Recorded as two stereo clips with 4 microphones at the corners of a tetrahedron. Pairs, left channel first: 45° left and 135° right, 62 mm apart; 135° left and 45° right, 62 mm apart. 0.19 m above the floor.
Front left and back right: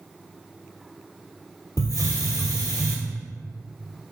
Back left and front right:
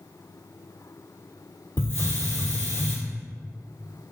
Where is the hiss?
80° left, 0.8 m.